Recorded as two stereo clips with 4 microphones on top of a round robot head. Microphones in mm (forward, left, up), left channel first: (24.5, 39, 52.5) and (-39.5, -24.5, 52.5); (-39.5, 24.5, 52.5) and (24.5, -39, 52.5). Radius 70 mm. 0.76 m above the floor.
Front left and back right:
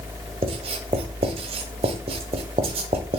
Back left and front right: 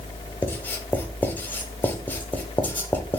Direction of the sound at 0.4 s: 155° right.